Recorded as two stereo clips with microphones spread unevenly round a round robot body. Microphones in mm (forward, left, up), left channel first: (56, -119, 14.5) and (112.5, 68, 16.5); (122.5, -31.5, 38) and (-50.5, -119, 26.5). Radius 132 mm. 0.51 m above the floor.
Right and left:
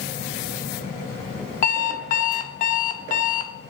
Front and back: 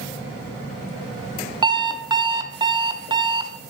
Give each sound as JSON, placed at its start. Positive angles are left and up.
{"t": 1.6, "sound": "an alarm clock", "azimuth_deg": -100, "distance_m": 0.6}